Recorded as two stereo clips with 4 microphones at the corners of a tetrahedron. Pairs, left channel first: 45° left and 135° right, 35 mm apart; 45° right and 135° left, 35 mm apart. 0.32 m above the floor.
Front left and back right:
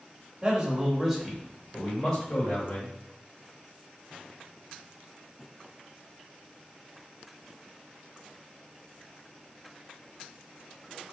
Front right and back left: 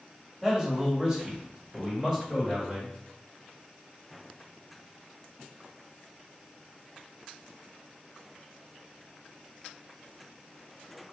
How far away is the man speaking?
About 1.5 m.